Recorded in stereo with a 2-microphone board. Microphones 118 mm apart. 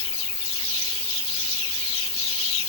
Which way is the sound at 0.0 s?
55° left (ahead or behind).